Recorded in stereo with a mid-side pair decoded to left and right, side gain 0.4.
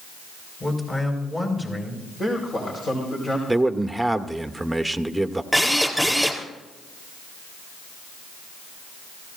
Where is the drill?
Straight ahead, 4 m.